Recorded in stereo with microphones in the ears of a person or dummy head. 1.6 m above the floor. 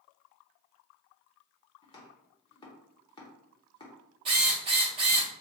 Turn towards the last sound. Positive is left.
turn(degrees=-25)  # may be behind; listen again after turning